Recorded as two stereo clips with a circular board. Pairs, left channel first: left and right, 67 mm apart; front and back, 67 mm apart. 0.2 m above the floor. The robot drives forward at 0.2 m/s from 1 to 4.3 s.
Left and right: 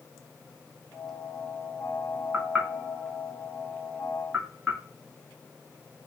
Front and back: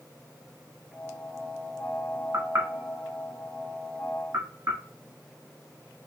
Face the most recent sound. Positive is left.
turn(degrees=-165)